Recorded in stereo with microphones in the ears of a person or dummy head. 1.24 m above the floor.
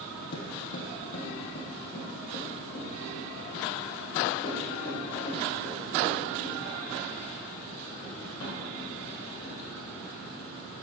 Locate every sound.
0.3 s footsteps: 50° left (ahead or behind), 2.5 m; by 9.5 s 30° left (ahead or behind), 15 m